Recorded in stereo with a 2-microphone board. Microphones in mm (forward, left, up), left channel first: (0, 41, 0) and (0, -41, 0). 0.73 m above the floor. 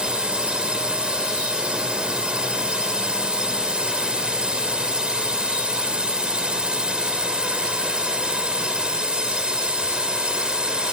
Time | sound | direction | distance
0.0 | a drone | 10° right (ahead or behind) | ?